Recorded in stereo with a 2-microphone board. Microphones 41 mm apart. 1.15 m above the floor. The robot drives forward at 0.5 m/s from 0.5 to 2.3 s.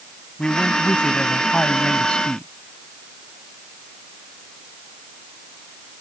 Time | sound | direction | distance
0.4 | a man speaking | 25° left (ahead or behind) | ?